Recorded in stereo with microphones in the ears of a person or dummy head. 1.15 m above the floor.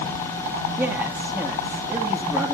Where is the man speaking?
15° right (ahead or behind), 2 m.